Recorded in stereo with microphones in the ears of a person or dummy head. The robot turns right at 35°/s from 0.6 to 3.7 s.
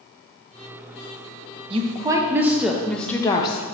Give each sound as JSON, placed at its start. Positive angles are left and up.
{"t": 1.7, "sound": "a woman speaking", "azimuth_deg": -30, "distance_m": 0.6}